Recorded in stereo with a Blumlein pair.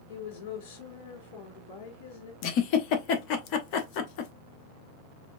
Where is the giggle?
40° left, 1.0 m.